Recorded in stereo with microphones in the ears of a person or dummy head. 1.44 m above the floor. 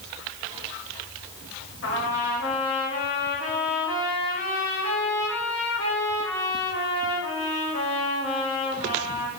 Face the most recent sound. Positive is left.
turn(degrees=55)  # may be behind; listen again after turning